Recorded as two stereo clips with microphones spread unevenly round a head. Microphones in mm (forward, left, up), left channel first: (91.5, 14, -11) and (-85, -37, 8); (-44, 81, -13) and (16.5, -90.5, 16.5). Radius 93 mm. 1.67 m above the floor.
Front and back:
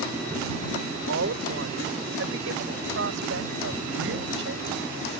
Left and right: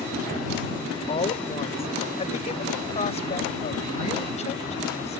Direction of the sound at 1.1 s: 170° left.